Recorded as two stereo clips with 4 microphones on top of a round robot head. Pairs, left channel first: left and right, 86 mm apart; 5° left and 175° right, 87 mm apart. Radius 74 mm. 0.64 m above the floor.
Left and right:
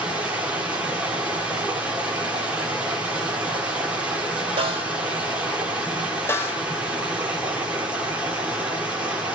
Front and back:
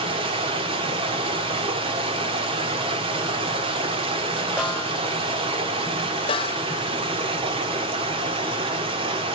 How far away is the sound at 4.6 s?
About 2.5 m.